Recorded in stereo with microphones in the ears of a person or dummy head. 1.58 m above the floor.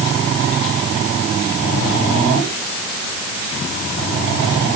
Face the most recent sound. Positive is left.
No sound to turn to.